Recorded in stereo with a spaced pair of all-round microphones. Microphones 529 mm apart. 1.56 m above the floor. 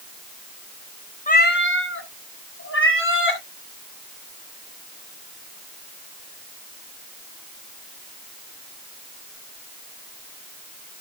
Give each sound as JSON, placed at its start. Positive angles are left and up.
{"t": 1.3, "sound": "a cat meowing", "side_deg": 15, "distance_m": 0.9}